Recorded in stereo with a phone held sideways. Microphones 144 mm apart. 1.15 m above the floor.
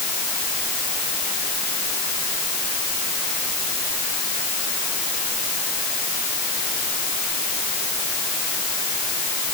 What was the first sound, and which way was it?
Only background noise.